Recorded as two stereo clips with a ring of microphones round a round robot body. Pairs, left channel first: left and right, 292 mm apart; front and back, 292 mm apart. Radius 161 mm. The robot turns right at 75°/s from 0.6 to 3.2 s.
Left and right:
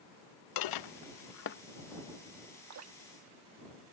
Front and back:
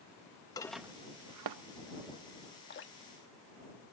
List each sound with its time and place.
0.6 s dishes clattering: 80° left; by 1.6 s 155° left
2.7 s dripping: 60° right; by 3.9 s 20° right